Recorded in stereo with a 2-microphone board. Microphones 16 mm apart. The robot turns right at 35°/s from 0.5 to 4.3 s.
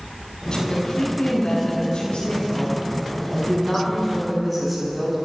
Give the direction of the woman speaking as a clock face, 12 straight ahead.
10 o'clock.